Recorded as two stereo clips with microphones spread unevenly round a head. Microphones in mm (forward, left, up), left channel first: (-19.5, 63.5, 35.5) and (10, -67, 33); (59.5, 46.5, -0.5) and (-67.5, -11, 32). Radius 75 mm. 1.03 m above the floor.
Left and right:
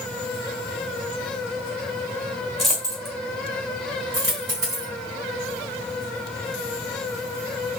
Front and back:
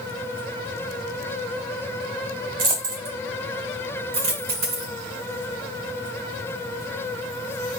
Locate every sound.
2.6 s a dropped coin: 170° right, 1.5 m
4.1 s a dropped coin: 145° right, 2.5 m